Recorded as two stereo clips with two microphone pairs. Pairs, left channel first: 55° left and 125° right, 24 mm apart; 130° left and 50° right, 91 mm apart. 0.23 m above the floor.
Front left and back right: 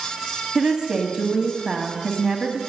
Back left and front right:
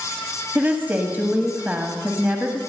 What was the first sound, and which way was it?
A woman speaking, 105° right.